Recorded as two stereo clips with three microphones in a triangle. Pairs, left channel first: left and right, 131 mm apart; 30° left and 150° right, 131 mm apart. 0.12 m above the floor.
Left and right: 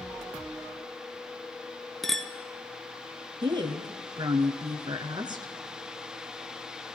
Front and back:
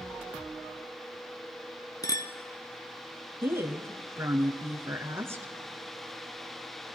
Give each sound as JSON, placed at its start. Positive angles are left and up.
{"t": 2.0, "sound": "a clink", "azimuth_deg": 5, "distance_m": 0.9}
{"t": 3.4, "sound": "a woman speaking", "azimuth_deg": -95, "distance_m": 1.4}